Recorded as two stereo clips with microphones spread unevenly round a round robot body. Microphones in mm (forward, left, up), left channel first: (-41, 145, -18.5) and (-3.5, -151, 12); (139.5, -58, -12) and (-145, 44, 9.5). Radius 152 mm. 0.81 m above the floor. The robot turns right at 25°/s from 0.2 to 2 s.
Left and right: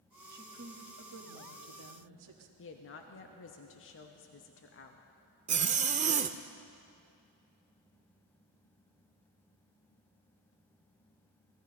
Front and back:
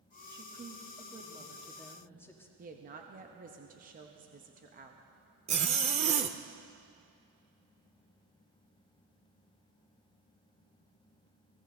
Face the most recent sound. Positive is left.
turn(degrees=-140)